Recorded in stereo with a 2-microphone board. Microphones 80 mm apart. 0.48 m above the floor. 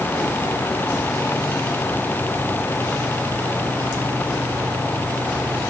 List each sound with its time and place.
Only background noise.